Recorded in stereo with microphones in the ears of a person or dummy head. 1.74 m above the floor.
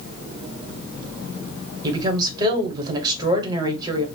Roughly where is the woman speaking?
Right.